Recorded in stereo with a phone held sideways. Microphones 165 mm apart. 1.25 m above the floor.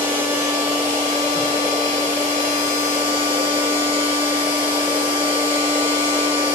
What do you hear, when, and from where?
0.0 s a machine running: 50° right (ahead or behind), 1.9 m